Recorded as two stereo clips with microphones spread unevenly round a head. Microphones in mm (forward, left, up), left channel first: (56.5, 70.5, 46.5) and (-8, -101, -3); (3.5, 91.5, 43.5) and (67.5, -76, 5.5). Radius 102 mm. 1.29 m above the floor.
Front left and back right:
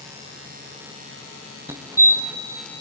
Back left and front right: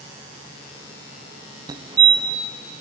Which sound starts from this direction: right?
A fire alarm, at 1.7 s.